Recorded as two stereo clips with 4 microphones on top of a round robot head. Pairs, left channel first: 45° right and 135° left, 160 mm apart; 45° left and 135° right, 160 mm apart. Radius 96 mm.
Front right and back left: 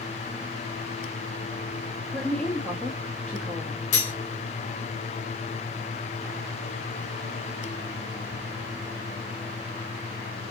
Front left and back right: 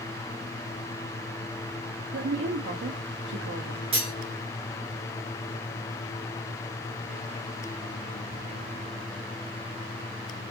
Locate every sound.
2.1 s a woman speaking: 130° right, 0.8 m
3.9 s cutlery clinking: 80° right, 1.0 m